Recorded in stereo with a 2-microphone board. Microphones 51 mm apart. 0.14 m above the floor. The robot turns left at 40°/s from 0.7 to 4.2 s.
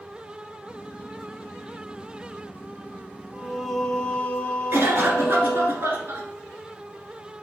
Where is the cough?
50° right (ahead or behind), 1.6 m.